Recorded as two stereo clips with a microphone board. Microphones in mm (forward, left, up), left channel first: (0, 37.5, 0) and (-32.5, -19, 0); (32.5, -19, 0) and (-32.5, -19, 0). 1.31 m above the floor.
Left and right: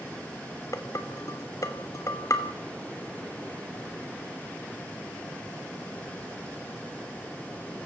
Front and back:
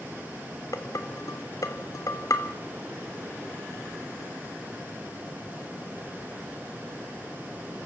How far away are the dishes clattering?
About 2.5 m.